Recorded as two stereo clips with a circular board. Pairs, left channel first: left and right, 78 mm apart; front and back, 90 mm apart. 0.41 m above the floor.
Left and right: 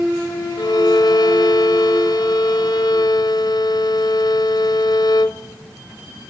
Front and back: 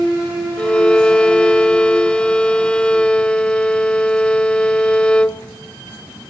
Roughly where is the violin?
Left.